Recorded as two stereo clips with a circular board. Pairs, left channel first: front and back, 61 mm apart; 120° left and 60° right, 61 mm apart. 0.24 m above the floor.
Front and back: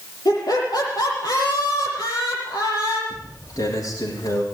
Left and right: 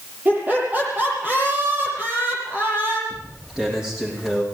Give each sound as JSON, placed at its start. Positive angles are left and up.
{"t": 0.2, "sound": "laughter", "azimuth_deg": 0, "distance_m": 8.5}
{"t": 3.1, "sound": "footsteps", "azimuth_deg": 20, "distance_m": 10.0}